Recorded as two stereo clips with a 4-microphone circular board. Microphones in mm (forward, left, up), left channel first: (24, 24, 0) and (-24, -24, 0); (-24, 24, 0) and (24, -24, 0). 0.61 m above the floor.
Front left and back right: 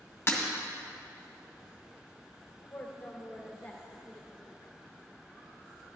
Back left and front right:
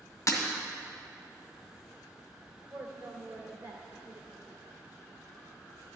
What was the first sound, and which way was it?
Breaking glass, 95° left.